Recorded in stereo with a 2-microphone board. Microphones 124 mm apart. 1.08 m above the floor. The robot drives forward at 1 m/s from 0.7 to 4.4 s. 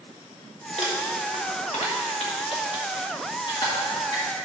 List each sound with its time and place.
0.8 s crumpling: 55° left (ahead or behind), 1.7 m; by 4.2 s 30° left (ahead or behind), 3 m